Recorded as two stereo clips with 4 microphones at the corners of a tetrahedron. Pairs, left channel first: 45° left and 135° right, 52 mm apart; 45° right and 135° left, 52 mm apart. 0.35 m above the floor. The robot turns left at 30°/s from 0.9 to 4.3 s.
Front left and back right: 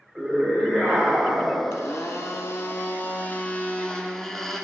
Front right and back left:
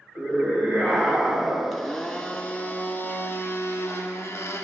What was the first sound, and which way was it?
A scream, 160° left.